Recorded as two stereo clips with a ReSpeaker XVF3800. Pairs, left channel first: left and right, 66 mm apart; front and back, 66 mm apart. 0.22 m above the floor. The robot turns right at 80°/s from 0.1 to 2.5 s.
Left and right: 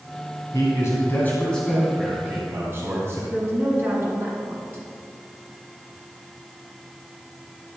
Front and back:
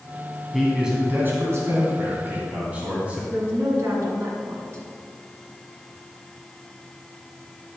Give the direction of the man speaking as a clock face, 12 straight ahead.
9 o'clock.